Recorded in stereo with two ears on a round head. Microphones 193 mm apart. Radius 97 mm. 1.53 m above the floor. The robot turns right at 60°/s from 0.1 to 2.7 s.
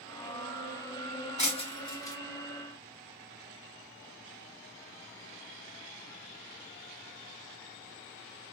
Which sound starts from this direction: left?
Breaking glass, at 1.4 s.